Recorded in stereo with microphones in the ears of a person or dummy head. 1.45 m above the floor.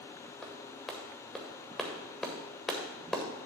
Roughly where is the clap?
Centre.